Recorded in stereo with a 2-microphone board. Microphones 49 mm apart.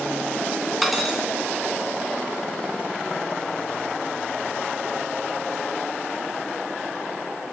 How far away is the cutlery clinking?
About 3 m.